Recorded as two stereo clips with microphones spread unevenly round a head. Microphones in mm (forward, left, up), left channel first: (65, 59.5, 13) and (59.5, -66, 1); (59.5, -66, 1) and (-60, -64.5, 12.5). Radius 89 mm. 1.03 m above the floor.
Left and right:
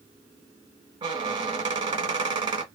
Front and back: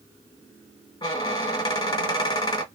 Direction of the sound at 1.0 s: 55° right.